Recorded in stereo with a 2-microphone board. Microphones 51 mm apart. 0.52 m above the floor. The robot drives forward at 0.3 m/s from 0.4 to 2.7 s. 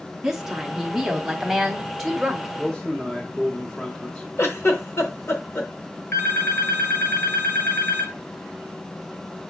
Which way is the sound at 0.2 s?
10° right (ahead or behind).